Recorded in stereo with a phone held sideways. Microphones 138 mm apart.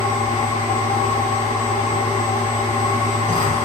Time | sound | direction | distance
0.0 | a machine running | 70° left (ahead or behind) | 8.5 m